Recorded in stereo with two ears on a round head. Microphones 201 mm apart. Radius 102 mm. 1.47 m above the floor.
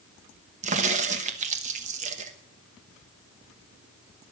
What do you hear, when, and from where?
0.6 s a crack: 30° right (ahead or behind), 1.1 m